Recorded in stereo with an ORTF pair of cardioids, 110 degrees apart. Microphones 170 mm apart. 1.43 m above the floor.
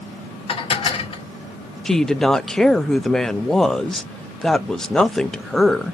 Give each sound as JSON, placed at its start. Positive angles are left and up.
{"t": 0.5, "sound": "dishes clattering", "azimuth_deg": 35, "distance_m": 1.4}
{"t": 1.9, "sound": "a woman speaking", "azimuth_deg": 5, "distance_m": 0.5}